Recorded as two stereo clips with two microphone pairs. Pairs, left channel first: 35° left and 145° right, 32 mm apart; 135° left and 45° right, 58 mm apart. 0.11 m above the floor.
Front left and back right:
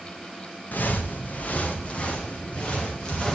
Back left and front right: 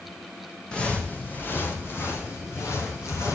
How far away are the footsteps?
About 1.8 m.